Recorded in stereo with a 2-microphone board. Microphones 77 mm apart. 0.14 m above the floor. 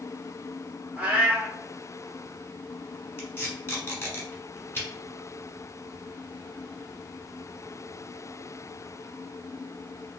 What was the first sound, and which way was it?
A cat meowing, 20° right (ahead or behind).